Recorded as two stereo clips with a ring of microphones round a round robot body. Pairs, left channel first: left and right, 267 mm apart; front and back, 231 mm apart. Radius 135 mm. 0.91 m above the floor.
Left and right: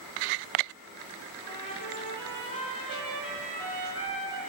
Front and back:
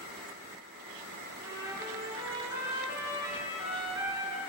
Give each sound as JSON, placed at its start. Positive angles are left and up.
{"t": 1.4, "sound": "a trumpet", "azimuth_deg": 105, "distance_m": 4.5}